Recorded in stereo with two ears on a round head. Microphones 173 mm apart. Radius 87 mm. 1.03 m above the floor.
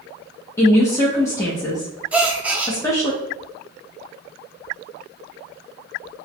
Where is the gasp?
5° right (ahead or behind), 0.6 m.